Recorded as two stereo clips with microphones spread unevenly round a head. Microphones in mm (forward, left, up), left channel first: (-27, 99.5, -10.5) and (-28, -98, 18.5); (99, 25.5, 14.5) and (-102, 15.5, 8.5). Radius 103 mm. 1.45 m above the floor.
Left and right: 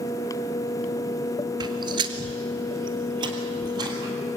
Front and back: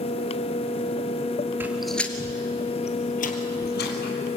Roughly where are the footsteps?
Right.